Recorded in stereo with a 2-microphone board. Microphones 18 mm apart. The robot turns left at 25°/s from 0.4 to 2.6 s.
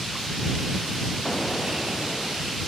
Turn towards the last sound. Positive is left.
turn(degrees=0)